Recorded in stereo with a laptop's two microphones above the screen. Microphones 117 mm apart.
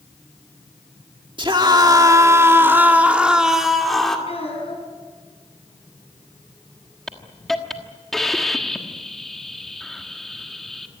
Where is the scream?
45° right (ahead or behind), 1.8 m; by 4.2 s 5° left (ahead or behind), 2.5 m.